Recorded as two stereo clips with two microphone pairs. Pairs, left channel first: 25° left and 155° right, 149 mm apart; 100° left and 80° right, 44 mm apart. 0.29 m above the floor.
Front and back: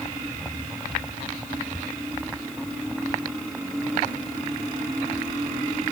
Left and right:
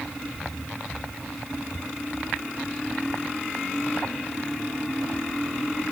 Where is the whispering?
No whispering in this recording.